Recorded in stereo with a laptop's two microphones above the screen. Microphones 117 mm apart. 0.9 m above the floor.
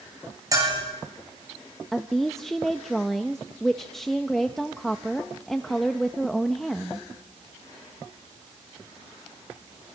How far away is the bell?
About 9 m.